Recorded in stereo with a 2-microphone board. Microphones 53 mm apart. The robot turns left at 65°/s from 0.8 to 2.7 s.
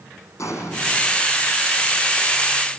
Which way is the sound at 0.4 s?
75° left (ahead or behind).